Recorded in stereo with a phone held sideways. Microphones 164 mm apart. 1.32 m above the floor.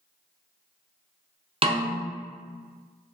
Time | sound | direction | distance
1.6 | a snare drum | 35° right (ahead or behind) | 0.6 m